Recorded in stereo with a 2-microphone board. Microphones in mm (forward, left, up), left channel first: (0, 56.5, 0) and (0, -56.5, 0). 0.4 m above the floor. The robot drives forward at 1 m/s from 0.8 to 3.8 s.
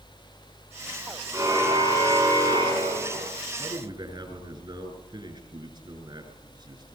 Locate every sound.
1.3 s a car horn: 25° right (ahead or behind), 7.5 m; by 3.3 s 35° right (ahead or behind), 6 m
3.6 s a man speaking: 40° right (ahead or behind), 7 m